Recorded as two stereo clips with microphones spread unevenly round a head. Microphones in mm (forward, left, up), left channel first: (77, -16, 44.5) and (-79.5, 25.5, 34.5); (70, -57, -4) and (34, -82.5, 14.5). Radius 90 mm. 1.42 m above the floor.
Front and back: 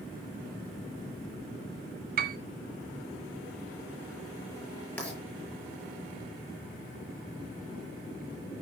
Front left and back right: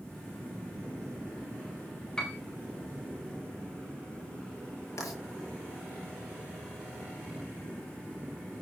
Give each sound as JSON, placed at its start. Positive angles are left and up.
{"t": 2.2, "sound": "a piano", "azimuth_deg": 130, "distance_m": 1.4}
{"t": 5.0, "sound": "writing", "azimuth_deg": 65, "distance_m": 7.5}